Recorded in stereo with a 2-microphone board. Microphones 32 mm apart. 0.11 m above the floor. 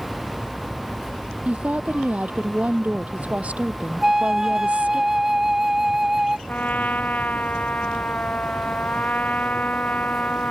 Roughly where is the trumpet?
Left.